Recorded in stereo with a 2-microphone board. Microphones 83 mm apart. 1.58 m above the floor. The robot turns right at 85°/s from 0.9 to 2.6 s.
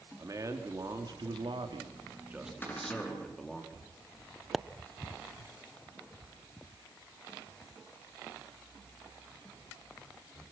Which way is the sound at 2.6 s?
20° left (ahead or behind).